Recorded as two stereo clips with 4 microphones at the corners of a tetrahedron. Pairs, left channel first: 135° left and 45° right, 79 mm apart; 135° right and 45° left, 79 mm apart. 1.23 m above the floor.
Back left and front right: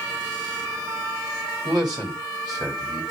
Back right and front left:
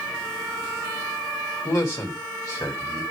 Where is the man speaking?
85° right, 2.5 m.